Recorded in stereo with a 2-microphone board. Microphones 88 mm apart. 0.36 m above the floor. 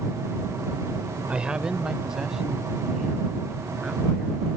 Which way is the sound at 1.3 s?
10° right (ahead or behind).